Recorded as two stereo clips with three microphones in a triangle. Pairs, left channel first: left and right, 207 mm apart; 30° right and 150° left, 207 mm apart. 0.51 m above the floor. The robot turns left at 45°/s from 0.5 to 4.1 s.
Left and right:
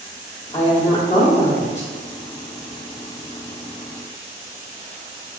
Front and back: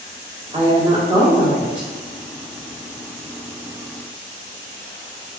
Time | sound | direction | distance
0.5 | a woman speaking | 125° left | 1.1 m